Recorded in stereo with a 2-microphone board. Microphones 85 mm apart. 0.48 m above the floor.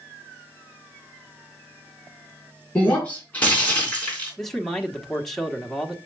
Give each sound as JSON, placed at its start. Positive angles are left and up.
{"t": 2.8, "sound": "breaking glass", "side_deg": 20, "distance_m": 3.5}
{"t": 4.4, "sound": "a man speaking", "side_deg": 5, "distance_m": 1.2}